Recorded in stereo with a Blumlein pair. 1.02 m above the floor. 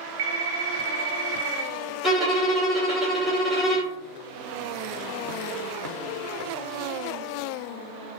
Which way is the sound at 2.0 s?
10° left.